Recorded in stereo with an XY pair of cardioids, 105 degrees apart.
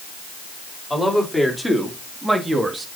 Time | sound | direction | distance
0.9 | a man speaking | 5° left | 3 m